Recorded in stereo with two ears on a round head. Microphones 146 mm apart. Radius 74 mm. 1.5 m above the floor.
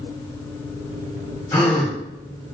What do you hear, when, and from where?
1.5 s a gasp: 10° left (ahead or behind), 6 m